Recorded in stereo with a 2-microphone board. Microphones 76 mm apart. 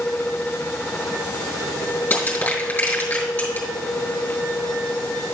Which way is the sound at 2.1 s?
20° left (ahead or behind).